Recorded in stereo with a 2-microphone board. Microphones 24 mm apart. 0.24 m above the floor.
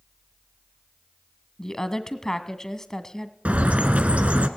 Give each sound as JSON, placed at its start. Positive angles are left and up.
{"t": 1.6, "sound": "a woman speaking", "side_deg": 20, "distance_m": 1.9}
{"t": 3.5, "sound": "a bird", "side_deg": -65, "distance_m": 1.6}